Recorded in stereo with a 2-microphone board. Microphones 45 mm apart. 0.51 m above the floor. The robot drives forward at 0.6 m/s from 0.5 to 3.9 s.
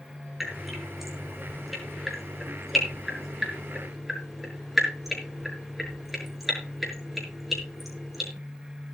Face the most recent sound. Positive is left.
turn(degrees=-5)  # may be behind; listen again after turning